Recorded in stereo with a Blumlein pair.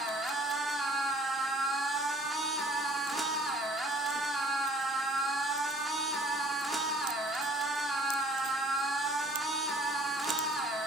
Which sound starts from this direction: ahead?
A machine running, at 0.0 s.